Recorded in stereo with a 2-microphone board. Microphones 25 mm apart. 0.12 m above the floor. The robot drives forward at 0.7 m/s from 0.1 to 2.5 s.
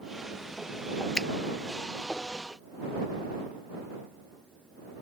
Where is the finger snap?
25° left (ahead or behind).